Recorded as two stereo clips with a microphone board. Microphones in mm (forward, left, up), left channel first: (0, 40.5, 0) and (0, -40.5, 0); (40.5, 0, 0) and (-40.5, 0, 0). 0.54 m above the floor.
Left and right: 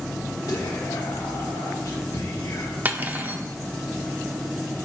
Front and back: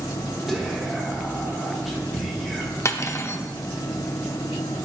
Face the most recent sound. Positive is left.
turn(degrees=-30)